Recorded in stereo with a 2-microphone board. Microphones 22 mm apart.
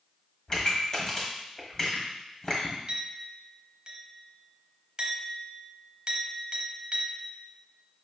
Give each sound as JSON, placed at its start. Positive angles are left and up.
{"t": 0.5, "sound": "a pop", "side_deg": 30, "distance_m": 1.3}
{"t": 2.9, "sound": "a clink", "side_deg": -35, "distance_m": 0.9}